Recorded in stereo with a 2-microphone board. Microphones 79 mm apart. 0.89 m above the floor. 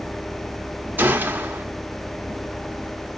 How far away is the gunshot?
About 0.9 m.